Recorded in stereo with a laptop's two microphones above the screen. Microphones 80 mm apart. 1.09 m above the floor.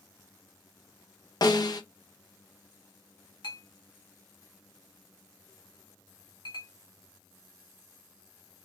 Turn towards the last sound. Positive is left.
turn(degrees=75)  # may be behind; listen again after turning